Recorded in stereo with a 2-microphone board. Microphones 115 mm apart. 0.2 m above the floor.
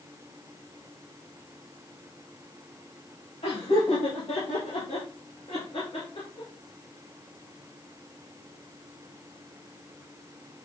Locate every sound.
3.4 s laughter: 70° left (ahead or behind), 4.5 m; by 6.5 s 50° left (ahead or behind), 3 m